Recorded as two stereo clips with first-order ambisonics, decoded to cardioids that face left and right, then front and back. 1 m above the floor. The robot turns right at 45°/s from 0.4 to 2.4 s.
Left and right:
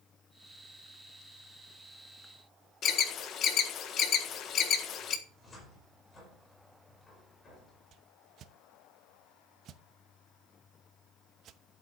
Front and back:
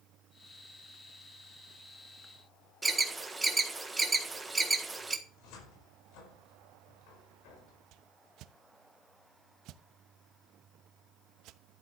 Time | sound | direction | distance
2.8 | an alarm | 100° left | 1.5 m
5.3 | a cupboard door | 15° left | 5 m
7.9 | a whoosh | 140° right | 0.8 m